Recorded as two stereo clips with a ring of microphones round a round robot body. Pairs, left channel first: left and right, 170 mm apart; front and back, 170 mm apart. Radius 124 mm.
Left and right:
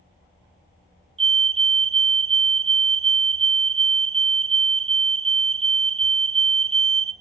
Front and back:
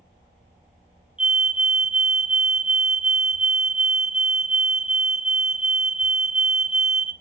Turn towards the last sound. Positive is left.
turn(degrees=-100)